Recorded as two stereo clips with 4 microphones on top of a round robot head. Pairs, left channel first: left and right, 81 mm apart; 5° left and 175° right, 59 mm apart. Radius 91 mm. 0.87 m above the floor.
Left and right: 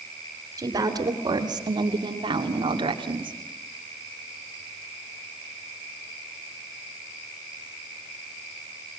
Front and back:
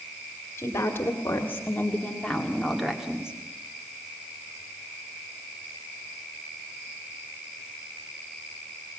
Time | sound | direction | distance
0.6 | a woman speaking | 50° right | 2.5 m